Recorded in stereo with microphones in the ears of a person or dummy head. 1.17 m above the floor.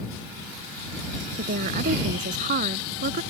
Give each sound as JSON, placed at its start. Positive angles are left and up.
{"t": 1.4, "sound": "a woman speaking", "side_deg": -45}